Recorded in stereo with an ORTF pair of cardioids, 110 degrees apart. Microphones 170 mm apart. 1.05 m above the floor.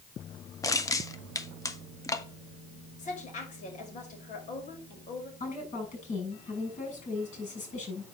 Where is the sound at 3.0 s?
45° left, 5.5 m.